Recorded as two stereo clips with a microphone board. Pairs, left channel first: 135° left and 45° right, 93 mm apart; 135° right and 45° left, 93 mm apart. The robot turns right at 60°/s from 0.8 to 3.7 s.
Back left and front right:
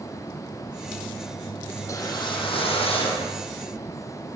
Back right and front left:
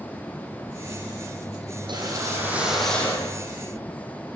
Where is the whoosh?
75° left, 9 m; by 3.4 s 170° left, 9 m.